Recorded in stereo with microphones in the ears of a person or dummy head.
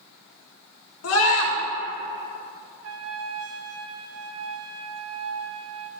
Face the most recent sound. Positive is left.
turn(degrees=-70)  # may be behind; listen again after turning